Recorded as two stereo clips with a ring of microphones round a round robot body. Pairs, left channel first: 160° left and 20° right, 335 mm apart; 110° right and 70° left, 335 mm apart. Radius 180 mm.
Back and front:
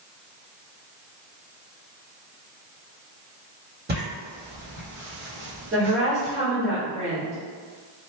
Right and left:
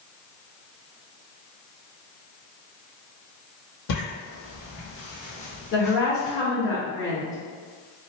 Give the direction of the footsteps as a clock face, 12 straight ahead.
3 o'clock.